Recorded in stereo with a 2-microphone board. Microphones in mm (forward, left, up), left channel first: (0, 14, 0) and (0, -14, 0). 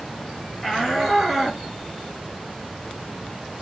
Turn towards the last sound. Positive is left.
turn(degrees=-15)  # may be behind; listen again after turning